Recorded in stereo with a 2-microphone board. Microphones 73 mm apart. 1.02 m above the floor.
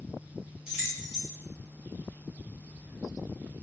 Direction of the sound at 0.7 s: 10° right (ahead or behind).